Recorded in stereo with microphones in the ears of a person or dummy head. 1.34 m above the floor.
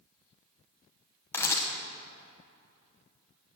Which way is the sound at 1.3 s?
10° left (ahead or behind).